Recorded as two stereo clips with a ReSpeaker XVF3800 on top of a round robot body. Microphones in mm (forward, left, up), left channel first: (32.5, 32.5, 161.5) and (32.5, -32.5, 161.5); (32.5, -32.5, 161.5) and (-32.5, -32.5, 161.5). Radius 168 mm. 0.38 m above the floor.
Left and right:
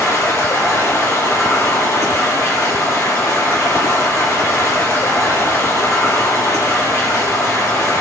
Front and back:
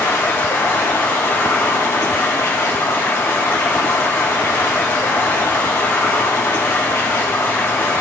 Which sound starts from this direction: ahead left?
Running water, at 0.0 s.